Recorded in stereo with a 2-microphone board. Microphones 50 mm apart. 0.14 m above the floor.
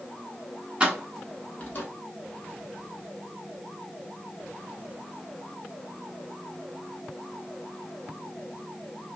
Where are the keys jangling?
20° right (ahead or behind), 0.9 m; by 1.9 s 40° left (ahead or behind), 1.2 m.